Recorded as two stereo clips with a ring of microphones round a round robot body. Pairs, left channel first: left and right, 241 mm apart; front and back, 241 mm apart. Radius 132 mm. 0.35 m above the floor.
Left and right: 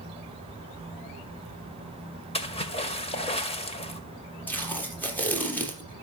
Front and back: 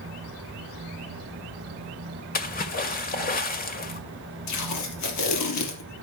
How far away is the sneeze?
No sneeze in this recording.